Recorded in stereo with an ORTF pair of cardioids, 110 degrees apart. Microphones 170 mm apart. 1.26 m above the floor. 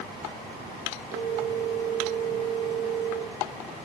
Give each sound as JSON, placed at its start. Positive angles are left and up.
{"t": 1.1, "sound": "a phone ringing", "azimuth_deg": -70, "distance_m": 3.5}